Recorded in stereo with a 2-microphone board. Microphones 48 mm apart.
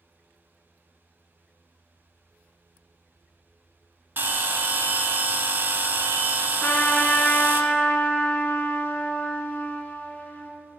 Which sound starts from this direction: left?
A trumpet, at 6.6 s.